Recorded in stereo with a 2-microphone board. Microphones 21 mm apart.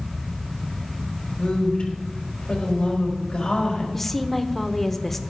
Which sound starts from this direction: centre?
A woman speaking, at 3.9 s.